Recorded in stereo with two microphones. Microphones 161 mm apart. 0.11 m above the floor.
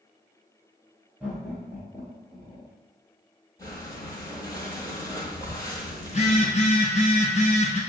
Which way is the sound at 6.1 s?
50° left (ahead or behind).